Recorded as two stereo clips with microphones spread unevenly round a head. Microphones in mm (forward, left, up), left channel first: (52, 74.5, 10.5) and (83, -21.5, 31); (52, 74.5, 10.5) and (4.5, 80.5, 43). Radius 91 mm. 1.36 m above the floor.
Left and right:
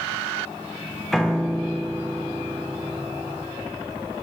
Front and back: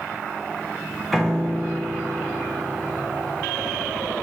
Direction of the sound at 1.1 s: 150° right.